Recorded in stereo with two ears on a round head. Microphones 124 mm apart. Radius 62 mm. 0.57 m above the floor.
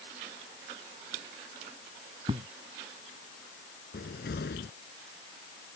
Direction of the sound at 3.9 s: 85° left.